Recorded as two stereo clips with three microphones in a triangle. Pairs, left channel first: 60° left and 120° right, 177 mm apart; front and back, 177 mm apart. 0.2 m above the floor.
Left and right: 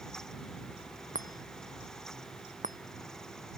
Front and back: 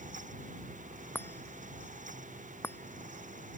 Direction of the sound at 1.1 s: 80° right.